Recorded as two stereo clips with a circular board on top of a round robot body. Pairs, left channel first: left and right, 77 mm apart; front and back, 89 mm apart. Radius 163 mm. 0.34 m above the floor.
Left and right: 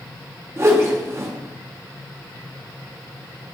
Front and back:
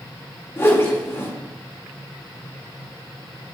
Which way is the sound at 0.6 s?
50° right.